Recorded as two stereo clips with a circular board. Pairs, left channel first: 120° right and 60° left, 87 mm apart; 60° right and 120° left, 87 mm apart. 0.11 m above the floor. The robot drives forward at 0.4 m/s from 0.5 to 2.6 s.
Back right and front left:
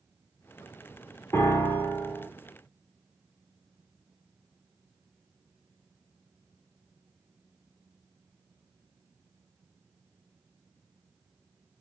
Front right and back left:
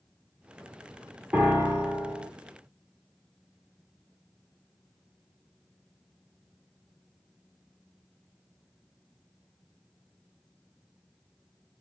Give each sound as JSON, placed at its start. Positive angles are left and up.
{"t": 1.3, "sound": "a piano", "azimuth_deg": -170, "distance_m": 1.3}